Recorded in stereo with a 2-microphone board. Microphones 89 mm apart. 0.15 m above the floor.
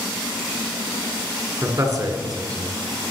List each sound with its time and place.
1.6 s a man speaking: 40° right (ahead or behind), 1.4 m; by 2.8 s 55° right (ahead or behind), 2 m